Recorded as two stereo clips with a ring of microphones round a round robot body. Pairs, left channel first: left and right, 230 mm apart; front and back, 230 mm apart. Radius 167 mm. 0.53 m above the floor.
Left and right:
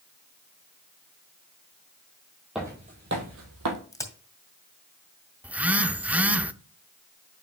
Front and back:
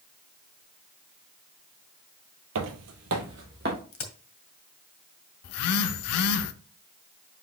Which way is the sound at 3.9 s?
15° left.